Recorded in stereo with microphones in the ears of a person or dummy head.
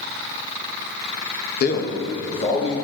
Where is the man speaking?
50° left (ahead or behind), 1.3 m; by 2.7 s 25° left (ahead or behind), 2.5 m.